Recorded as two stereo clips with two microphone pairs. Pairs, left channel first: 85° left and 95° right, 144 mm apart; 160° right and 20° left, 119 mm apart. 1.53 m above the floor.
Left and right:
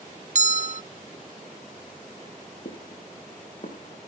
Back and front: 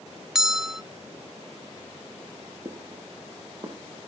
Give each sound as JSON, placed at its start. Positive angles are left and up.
{"t": 0.3, "sound": "a bell", "azimuth_deg": -65, "distance_m": 0.6}
{"t": 2.6, "sound": "footsteps", "azimuth_deg": 70, "distance_m": 5.5}